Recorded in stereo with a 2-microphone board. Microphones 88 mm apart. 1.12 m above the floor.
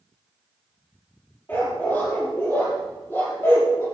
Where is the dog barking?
25° left (ahead or behind), 7.5 m; by 3.9 s 30° left (ahead or behind), 8.5 m.